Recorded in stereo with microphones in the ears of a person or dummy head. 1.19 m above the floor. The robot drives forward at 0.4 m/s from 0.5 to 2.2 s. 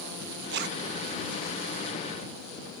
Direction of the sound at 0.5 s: 65° right (ahead or behind).